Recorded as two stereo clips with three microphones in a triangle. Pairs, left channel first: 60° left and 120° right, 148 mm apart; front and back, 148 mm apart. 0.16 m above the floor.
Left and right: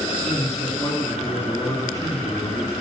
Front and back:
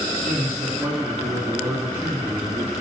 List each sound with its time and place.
0.2 s a man speaking: 115° left, 2 m